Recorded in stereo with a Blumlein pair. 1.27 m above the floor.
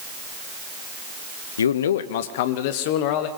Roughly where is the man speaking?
Ahead left.